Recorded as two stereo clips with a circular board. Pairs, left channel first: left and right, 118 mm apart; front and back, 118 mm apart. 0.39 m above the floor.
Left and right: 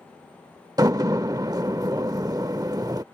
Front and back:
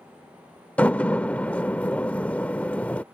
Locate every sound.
0.8 s a door slam: 70° right